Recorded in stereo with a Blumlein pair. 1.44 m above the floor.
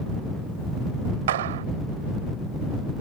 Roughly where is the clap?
Ahead right.